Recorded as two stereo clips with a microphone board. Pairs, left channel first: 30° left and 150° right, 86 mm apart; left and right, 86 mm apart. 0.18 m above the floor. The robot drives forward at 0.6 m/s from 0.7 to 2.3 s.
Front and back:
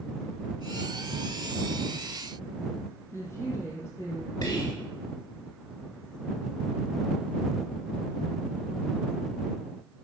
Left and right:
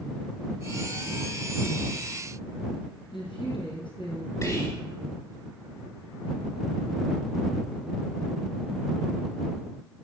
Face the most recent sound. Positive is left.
turn(degrees=65)